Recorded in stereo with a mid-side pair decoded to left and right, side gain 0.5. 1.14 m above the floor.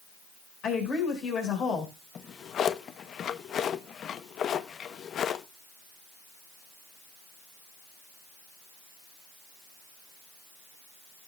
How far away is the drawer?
About 0.7 m.